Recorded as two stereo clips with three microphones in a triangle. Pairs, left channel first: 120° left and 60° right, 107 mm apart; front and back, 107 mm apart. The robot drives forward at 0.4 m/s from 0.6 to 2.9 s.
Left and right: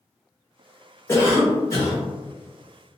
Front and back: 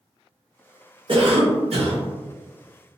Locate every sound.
1.1 s a cough: straight behind, 0.6 m